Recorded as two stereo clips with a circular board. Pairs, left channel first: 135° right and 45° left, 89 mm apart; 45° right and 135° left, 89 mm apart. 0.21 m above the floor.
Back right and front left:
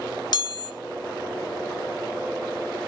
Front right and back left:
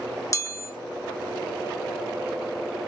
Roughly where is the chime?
Right.